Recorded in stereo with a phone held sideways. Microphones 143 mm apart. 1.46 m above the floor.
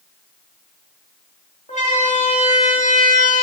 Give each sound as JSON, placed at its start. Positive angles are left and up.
{"t": 1.7, "sound": "a siren", "side_deg": 55, "distance_m": 4.5}